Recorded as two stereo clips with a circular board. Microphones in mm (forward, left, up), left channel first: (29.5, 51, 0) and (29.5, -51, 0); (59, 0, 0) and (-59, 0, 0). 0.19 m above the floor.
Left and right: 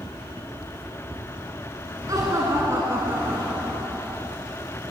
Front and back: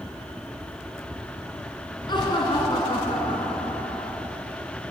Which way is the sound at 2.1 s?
40° right.